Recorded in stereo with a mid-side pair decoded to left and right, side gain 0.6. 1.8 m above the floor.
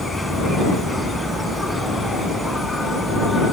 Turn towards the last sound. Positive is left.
turn(degrees=10)